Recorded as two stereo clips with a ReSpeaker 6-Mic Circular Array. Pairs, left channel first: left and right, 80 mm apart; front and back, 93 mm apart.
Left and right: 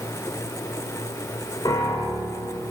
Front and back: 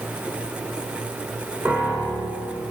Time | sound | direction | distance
1.6 | a piano | 115° left | 2 m